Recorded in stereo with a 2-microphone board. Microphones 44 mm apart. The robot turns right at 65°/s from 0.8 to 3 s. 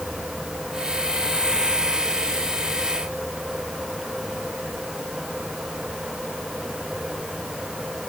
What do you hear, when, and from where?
Only background noise.